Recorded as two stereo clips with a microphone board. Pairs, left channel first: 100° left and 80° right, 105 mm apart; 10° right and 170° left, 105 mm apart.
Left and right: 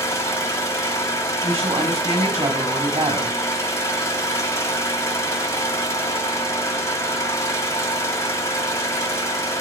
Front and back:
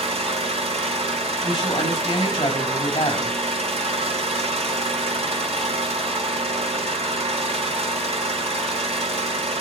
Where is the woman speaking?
55° right, 5.5 m.